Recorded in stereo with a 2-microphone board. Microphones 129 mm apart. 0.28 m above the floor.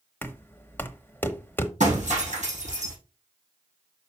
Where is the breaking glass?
60° right (ahead or behind), 6 m.